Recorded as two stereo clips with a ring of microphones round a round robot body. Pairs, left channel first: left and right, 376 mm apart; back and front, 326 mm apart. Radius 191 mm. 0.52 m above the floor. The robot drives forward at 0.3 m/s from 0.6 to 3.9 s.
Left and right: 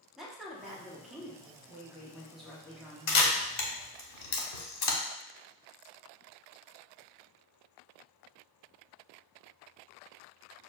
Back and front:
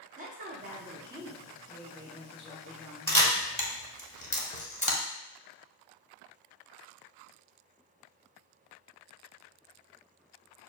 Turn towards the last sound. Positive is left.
turn(degrees=110)